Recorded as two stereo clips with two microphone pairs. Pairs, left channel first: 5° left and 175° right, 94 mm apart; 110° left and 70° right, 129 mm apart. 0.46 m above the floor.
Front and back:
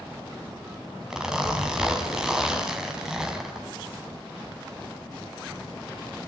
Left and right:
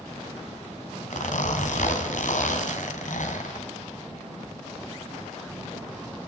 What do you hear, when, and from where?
1.1 s a zipper: 100° left, 2.5 m